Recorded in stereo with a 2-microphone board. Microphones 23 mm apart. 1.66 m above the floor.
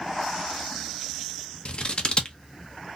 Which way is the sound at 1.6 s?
45° left (ahead or behind).